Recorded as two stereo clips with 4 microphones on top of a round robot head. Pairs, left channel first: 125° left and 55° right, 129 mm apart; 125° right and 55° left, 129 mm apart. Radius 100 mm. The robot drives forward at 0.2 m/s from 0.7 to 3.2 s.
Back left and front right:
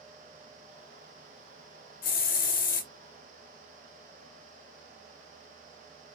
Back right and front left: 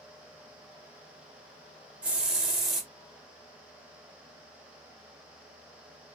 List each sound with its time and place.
2.0 s a hiss: 135° left, 0.9 m; by 2.9 s 140° left, 1.1 m